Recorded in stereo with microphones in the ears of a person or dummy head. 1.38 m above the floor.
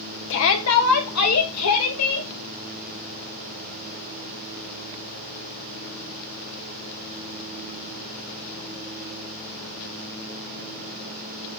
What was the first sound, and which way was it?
A shout, 65° left (ahead or behind).